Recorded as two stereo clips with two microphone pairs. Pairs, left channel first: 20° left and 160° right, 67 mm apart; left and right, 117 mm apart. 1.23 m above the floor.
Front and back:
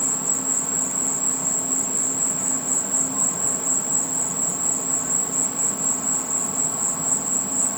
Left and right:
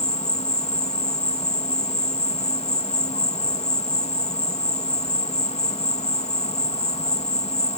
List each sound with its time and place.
0.0 s an insect: 110° left